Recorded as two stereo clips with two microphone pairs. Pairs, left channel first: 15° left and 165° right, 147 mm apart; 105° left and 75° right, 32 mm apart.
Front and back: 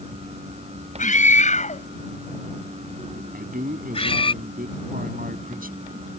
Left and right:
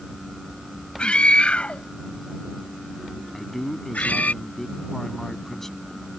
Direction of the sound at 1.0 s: 45° left.